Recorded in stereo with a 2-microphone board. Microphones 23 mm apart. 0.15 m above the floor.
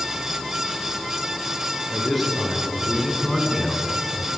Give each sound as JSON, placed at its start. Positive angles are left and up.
{"t": 1.9, "sound": "a man speaking", "side_deg": -5, "distance_m": 3.0}